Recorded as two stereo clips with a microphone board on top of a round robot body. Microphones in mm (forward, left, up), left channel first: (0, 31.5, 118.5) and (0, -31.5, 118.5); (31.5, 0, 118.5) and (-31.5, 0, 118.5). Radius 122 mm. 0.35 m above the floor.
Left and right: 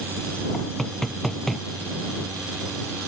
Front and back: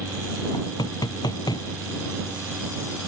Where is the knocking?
5° left.